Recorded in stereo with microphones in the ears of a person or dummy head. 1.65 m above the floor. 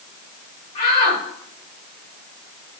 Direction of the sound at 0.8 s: 35° left (ahead or behind).